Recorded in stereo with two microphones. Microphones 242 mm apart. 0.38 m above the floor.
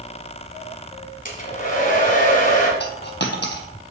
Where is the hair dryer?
35° left (ahead or behind), 1.7 m.